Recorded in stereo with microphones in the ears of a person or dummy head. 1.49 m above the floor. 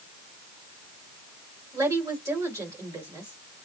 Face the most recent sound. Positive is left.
turn(degrees=-10)  # may be behind; listen again after turning